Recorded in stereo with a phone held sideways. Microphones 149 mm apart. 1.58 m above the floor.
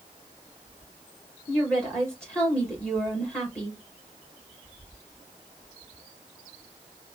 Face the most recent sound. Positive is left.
turn(degrees=5)  # may be behind; listen again after turning